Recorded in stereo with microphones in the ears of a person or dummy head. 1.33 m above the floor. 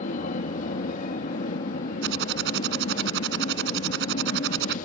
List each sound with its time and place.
0.0 s an aircraft: 45° left (ahead or behind)
2.0 s typing on a keyboard: 60° right (ahead or behind)